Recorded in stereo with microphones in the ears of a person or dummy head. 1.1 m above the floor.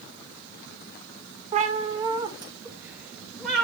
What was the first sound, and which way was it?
A cat meowing, 35° right (ahead or behind).